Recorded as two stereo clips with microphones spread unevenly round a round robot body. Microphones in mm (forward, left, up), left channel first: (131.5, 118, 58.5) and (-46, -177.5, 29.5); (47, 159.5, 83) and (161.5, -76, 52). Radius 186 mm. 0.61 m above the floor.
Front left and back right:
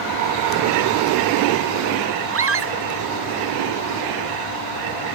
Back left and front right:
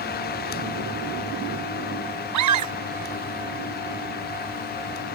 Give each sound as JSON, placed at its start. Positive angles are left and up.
{"t": 2.3, "sound": "a scream", "azimuth_deg": -70}